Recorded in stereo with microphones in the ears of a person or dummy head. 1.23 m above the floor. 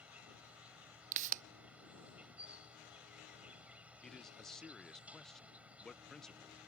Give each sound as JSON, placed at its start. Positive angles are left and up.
{"t": 0.0, "sound": "an insect", "side_deg": -5}
{"t": 1.1, "sound": "a pop", "side_deg": -45}
{"t": 4.0, "sound": "a man speaking", "side_deg": 0}